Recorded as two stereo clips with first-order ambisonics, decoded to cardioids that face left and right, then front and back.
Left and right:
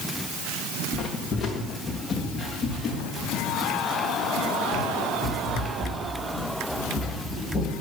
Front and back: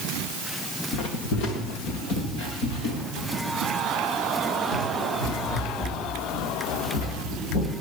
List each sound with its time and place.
0.9 s footsteps: 25° left, 2.5 m; by 7.7 s 20° left, 11.5 m